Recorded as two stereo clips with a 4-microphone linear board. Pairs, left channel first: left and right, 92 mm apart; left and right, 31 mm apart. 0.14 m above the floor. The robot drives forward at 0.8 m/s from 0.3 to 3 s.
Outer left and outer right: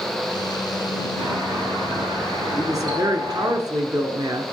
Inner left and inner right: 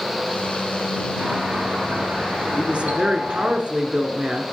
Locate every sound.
1.2 s a doorbell: 60° right (ahead or behind), 4 m; by 3.5 s 55° right (ahead or behind), 4 m
2.5 s a woman speaking: 40° right (ahead or behind), 1.4 m